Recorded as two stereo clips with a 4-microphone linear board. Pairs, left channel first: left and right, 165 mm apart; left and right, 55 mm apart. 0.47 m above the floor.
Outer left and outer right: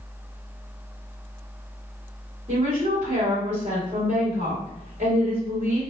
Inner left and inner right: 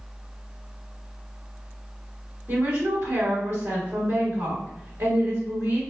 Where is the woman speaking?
50° right (ahead or behind), 2.0 m.